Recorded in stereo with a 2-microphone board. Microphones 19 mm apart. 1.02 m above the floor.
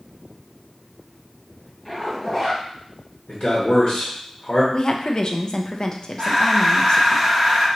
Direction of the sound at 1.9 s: 15° left (ahead or behind).